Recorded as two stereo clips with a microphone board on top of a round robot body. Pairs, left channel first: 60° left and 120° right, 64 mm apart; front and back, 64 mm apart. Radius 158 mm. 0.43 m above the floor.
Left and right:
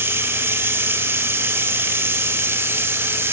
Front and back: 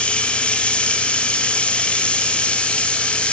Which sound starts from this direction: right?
Running water, at 0.0 s.